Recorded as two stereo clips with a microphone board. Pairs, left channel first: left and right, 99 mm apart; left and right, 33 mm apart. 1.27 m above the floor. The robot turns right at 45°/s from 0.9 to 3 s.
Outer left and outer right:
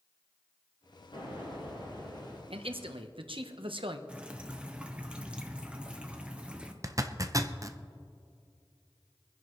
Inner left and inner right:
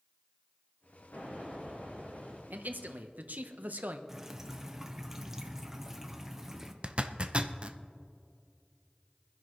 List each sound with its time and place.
1.1 s an explosion: 80° left, 5 m; by 2.4 s 135° left, 5 m
2.5 s a man speaking: 80° right, 1.1 m; by 4.0 s 70° right (ahead or behind), 1.1 m
4.1 s dripping: 10° right (ahead or behind), 1.0 m
6.8 s a zipper: 35° right (ahead or behind), 0.6 m